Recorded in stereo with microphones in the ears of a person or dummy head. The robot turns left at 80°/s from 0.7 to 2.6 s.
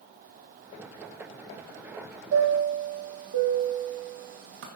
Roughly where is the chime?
Right.